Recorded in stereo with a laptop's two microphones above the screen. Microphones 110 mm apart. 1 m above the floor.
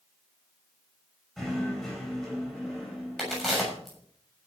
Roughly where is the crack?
Centre.